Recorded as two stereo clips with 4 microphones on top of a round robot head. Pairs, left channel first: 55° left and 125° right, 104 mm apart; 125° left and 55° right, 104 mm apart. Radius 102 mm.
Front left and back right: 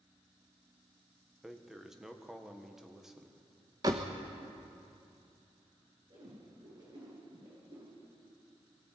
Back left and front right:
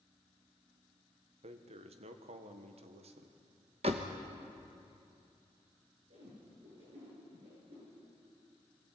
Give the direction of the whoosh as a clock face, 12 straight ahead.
2 o'clock.